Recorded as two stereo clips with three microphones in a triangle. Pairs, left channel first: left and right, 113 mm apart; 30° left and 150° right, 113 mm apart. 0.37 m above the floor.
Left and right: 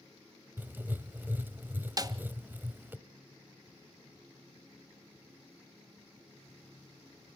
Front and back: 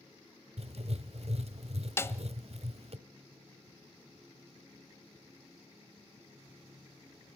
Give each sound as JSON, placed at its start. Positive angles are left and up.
{"t": 0.6, "sound": "writing", "azimuth_deg": -165, "distance_m": 0.8}
{"t": 2.0, "sound": "a snare drum", "azimuth_deg": -40, "distance_m": 0.7}